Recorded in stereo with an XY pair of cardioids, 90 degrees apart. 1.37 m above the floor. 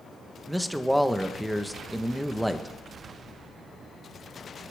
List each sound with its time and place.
0.5 s a man speaking: straight ahead, 1.1 m